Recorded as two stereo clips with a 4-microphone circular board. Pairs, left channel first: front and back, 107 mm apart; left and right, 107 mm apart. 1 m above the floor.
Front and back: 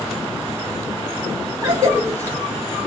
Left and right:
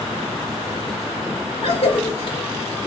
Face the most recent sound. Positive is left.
turn(degrees=125)